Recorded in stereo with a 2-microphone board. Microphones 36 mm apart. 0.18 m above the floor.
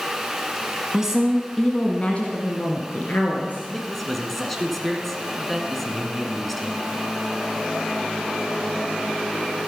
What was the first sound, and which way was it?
A woman speaking, 15° right (ahead or behind).